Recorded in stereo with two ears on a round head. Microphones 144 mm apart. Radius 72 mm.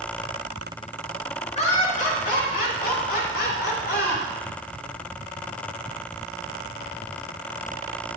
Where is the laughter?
40° left (ahead or behind), 1.9 m; by 4.2 s 75° left (ahead or behind), 4 m.